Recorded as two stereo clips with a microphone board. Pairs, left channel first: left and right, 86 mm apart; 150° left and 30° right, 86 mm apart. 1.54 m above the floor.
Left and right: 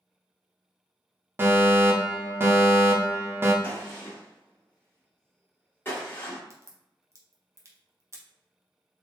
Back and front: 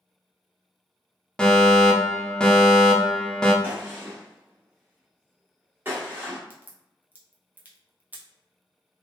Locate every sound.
1.4 s a fire alarm: 135° right, 0.7 m
3.6 s a gunshot: 30° left, 1.4 m
6.5 s a crack: 85° right, 0.8 m